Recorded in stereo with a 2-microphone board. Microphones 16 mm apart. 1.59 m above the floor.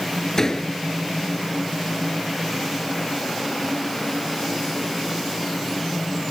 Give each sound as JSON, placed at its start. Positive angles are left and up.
{"t": 0.4, "sound": "a door slam", "side_deg": 30}